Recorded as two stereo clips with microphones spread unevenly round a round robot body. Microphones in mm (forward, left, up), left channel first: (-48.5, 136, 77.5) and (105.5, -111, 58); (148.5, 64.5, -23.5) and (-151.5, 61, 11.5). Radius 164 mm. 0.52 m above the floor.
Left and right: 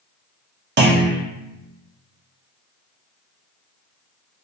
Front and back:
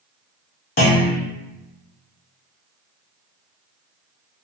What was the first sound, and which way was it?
A clunk, 30° right.